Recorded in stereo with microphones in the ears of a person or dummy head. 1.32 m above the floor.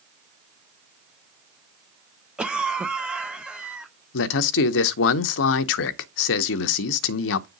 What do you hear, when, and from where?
2.4 s a cough: 5° right (ahead or behind), 0.9 m
4.1 s a man speaking: 70° left (ahead or behind), 0.7 m